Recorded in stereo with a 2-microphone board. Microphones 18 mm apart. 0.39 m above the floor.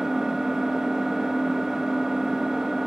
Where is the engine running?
30° right (ahead or behind), 1.0 m.